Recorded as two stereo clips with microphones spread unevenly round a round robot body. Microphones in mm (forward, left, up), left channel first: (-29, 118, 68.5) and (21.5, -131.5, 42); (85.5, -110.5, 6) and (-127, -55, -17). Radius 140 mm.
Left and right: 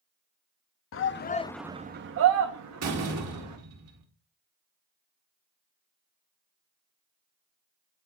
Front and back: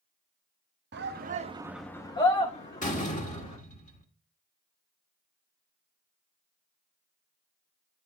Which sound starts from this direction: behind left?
A shout, at 0.9 s.